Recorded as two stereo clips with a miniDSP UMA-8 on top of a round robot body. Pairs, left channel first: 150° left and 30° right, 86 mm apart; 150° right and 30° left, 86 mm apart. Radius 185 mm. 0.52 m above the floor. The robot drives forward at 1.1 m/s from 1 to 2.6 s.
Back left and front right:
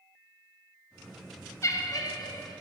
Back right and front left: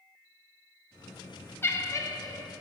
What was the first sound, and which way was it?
Laughter, 165° left.